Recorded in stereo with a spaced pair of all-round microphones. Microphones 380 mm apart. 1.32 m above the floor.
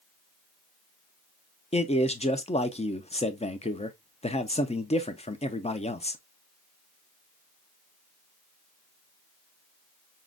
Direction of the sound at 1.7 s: 15° left (ahead or behind).